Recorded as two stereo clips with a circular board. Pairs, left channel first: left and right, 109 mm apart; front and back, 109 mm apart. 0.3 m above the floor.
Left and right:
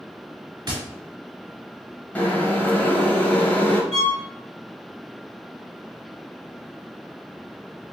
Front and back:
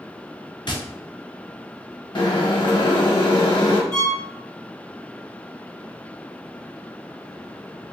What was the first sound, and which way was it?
Tapping, 40° right.